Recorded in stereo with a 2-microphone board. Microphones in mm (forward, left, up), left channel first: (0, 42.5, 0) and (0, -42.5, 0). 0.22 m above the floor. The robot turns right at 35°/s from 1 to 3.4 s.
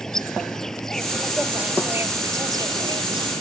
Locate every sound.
0.0 s an insect: 175° left; by 3.4 s 100° right